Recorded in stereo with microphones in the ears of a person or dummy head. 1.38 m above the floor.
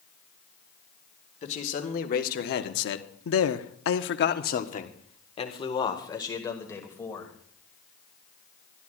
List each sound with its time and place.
1.4 s a man speaking: 40° left (ahead or behind), 1.8 m; by 7.3 s 10° left (ahead or behind), 3 m